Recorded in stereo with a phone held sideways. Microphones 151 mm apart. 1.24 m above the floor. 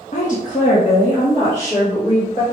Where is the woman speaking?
55° left (ahead or behind), 0.8 m; by 2.4 s 50° left (ahead or behind), 2.0 m.